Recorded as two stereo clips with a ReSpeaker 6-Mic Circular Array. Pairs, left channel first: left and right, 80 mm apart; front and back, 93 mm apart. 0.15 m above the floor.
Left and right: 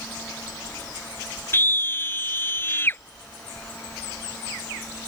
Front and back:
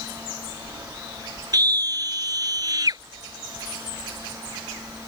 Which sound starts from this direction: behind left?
A scream, at 1.5 s.